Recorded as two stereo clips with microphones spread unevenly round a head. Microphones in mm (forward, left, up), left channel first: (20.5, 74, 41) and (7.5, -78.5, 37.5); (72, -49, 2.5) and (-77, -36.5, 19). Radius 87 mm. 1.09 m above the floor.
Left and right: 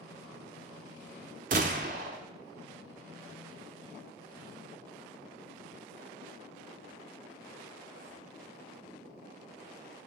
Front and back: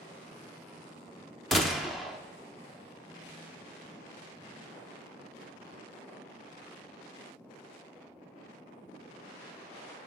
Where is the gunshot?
105° right, 0.7 m.